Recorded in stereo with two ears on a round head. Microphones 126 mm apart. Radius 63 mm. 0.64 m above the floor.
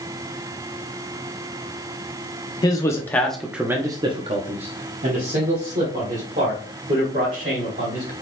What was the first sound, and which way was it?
A man speaking, 25° left (ahead or behind).